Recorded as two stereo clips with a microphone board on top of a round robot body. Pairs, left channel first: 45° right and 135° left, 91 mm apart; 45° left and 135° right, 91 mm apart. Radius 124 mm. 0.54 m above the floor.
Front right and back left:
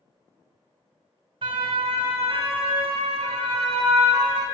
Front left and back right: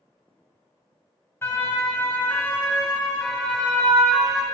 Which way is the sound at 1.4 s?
110° left.